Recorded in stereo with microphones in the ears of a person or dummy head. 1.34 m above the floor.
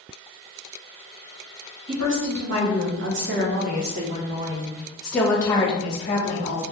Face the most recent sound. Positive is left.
turn(degrees=50)  # may be behind; listen again after turning